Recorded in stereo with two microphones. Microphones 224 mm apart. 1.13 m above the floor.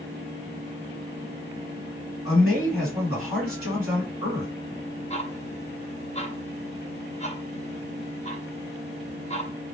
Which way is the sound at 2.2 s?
75° left (ahead or behind).